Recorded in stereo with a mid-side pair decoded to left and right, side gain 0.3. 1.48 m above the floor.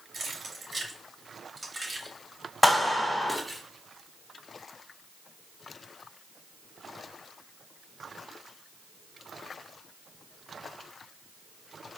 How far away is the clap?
About 2.5 m.